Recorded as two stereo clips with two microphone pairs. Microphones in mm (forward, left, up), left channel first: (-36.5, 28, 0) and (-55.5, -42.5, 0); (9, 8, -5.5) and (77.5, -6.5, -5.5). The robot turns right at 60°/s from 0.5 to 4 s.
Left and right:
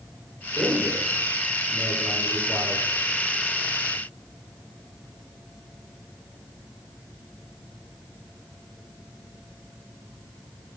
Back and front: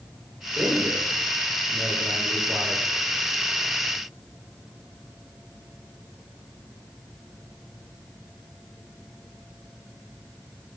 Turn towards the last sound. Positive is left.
turn(degrees=130)